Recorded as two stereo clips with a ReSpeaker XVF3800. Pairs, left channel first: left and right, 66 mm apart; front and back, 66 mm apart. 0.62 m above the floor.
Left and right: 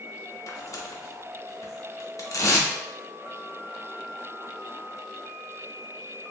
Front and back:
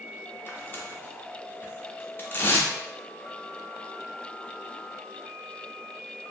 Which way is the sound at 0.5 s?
55° left.